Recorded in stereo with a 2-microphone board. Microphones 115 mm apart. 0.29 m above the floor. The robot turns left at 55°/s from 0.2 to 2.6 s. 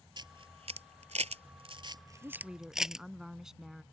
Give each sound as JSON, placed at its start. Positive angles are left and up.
{"t": 0.2, "sound": "a camera shutter", "side_deg": -45}
{"t": 2.2, "sound": "a woman speaking", "side_deg": -25}